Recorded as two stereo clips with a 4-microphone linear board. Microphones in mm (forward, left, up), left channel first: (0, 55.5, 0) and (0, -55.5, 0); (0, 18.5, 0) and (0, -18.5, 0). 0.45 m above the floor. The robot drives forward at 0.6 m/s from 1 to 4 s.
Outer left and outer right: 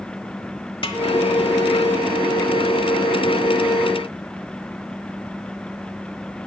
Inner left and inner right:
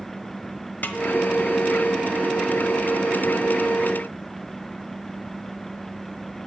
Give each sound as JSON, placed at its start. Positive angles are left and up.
{"t": 0.8, "sound": "a snare drum", "side_deg": 50, "distance_m": 1.2}